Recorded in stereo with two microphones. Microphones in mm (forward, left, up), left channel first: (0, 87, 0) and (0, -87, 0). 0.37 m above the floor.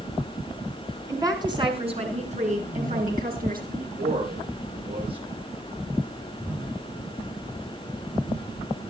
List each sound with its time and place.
1.1 s a woman speaking: 20° right (ahead or behind), 4 m; by 3.6 s 60° right (ahead or behind), 6 m
3.7 s a man speaking: 65° right (ahead or behind), 8 m